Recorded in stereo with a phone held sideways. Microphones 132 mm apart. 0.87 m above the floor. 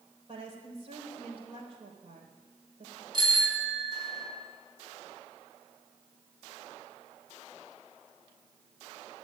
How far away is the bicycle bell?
About 5 m.